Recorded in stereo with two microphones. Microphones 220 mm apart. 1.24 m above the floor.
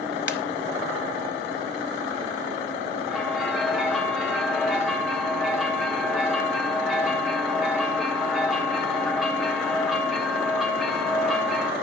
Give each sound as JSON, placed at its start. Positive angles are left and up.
{"t": 0.3, "sound": "a ringtone", "side_deg": 55, "distance_m": 1.4}
{"t": 3.1, "sound": "a bell", "side_deg": 0, "distance_m": 3.0}